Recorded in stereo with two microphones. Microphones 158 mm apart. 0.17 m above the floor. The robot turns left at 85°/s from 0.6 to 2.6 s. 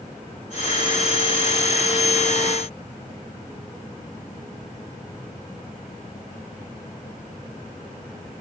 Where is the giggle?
No giggle in this recording.